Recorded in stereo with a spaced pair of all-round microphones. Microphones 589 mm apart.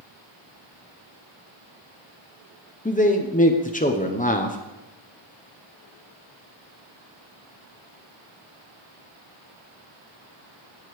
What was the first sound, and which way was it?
A man speaking, 15° left (ahead or behind).